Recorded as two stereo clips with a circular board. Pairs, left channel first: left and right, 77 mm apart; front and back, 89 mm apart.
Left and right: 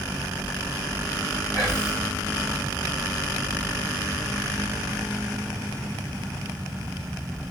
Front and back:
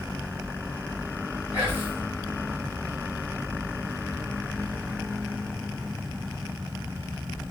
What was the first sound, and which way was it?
Whispering, 130° right.